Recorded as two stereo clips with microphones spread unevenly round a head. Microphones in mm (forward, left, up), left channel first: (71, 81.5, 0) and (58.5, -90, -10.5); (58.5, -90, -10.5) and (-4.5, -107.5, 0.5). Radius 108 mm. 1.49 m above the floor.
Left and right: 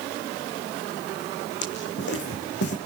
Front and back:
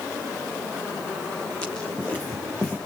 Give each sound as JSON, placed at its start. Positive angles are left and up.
{"t": 1.6, "sound": "footsteps", "azimuth_deg": 105, "distance_m": 4.5}